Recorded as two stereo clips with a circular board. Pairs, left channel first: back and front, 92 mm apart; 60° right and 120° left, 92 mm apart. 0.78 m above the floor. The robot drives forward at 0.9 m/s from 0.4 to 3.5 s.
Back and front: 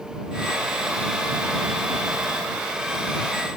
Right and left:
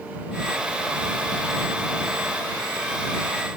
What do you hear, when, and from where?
Only background noise.